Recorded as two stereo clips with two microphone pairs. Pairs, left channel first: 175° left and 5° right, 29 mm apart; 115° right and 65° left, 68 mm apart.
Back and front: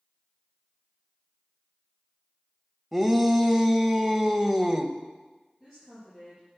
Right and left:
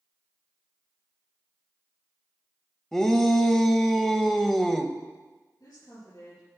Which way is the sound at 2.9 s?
50° right.